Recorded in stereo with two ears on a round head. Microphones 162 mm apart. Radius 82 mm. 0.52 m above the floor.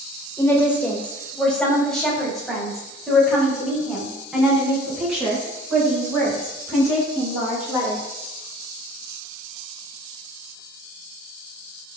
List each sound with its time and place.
0.4 s a woman speaking: 15° left (ahead or behind), 2.5 m; by 8.0 s 10° right (ahead or behind), 10 m